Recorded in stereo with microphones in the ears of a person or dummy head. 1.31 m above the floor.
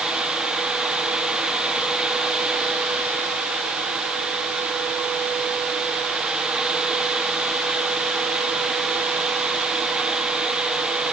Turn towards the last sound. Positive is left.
No sound to turn to.